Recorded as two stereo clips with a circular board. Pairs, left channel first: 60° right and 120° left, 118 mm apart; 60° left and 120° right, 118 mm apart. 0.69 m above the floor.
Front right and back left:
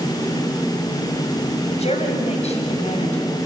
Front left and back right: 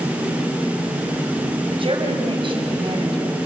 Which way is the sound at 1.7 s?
80° right.